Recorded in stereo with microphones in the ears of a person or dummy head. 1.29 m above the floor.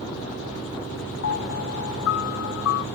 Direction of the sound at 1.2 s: 75° left (ahead or behind).